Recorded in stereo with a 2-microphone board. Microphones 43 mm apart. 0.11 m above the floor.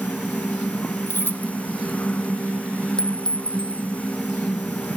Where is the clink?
20° left (ahead or behind).